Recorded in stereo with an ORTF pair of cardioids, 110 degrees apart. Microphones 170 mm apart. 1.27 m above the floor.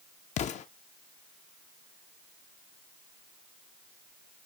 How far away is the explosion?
About 0.5 m.